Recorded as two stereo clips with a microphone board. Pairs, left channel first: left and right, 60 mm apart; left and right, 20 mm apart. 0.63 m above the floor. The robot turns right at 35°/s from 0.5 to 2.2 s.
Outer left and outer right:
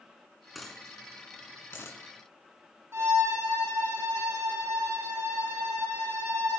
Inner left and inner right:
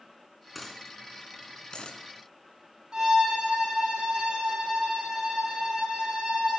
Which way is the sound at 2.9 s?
45° right (ahead or behind).